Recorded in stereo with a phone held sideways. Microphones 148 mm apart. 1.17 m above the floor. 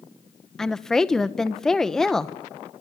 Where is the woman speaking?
5° left (ahead or behind), 1.0 m.